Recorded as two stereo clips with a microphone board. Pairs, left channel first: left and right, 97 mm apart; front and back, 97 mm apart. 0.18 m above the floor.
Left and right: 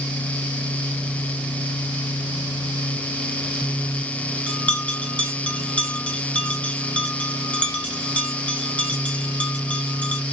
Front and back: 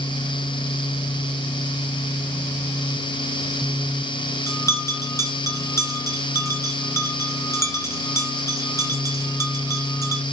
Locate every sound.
4.5 s a bell: 25° left, 1.4 m